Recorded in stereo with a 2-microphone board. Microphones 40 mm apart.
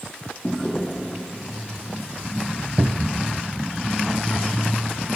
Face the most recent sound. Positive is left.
turn(degrees=-55)  # may be behind; listen again after turning